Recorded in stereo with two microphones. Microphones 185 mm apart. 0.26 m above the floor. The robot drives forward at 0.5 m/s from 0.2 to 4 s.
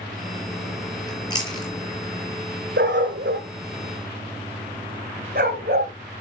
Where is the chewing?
25° left (ahead or behind), 5.5 m.